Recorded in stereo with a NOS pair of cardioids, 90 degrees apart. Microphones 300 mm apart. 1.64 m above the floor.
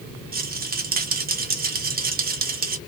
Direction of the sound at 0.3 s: 30° right.